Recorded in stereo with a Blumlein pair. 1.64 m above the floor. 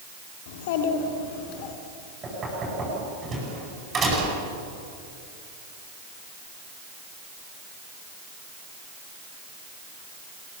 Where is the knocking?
20° right, 9.5 m.